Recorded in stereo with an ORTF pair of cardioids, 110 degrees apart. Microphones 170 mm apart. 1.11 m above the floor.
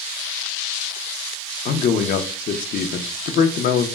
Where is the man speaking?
55° left, 0.5 m.